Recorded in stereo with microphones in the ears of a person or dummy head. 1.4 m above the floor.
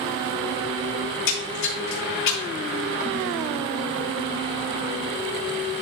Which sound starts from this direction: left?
A splash, at 1.1 s.